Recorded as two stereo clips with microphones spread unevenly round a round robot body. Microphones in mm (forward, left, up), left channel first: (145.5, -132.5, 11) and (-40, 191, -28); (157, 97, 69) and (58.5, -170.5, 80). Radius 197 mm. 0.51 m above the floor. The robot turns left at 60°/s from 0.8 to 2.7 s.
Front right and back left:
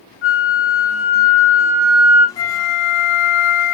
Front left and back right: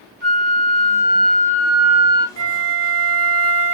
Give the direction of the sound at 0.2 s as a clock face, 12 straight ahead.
5 o'clock.